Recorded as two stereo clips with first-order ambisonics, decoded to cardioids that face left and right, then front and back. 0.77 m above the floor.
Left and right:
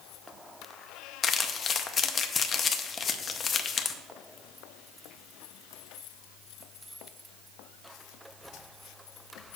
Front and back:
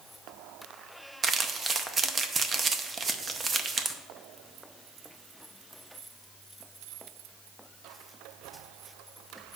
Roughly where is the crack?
I don't hear a crack.